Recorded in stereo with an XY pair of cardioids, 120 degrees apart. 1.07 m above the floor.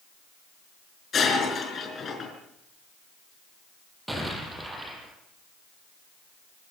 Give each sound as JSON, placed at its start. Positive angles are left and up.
{"t": 1.1, "sound": "breaking glass", "azimuth_deg": 40, "distance_m": 5.5}
{"t": 4.1, "sound": "an explosion", "azimuth_deg": -10, "distance_m": 6.5}